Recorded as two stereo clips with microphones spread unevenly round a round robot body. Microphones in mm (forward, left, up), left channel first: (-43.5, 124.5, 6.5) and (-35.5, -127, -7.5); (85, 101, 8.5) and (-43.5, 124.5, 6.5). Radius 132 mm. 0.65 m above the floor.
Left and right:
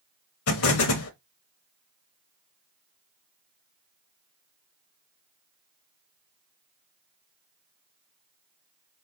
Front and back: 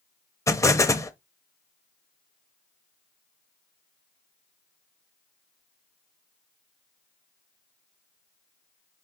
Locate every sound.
0.5 s an explosion: 60° left, 0.7 m